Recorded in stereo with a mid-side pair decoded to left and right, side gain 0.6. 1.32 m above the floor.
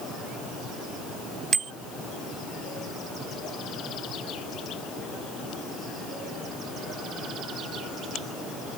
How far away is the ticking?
No ticking in this recording.